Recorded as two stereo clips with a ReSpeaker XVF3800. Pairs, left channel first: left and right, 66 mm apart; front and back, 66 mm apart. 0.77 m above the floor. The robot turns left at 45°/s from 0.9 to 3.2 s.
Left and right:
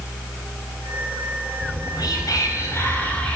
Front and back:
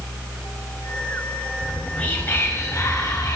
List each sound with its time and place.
1.6 s whispering: 90° left, 4.5 m; by 3.4 s 20° left, 4.5 m